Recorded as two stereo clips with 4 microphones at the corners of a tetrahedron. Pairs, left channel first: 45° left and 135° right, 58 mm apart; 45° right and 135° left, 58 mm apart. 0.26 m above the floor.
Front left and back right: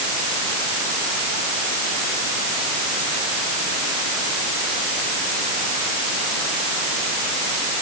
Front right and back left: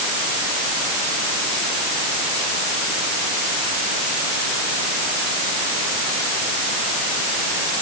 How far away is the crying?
I don't hear crying.